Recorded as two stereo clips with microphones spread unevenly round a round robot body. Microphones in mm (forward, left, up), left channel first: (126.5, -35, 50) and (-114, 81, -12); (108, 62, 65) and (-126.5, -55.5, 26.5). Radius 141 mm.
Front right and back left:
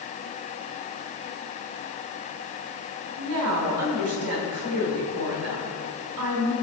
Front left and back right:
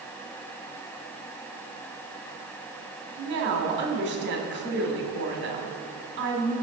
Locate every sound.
3.2 s a woman speaking: 170° left, 2.5 m